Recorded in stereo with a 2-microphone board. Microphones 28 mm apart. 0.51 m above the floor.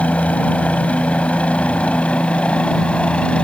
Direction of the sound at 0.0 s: 55° left (ahead or behind).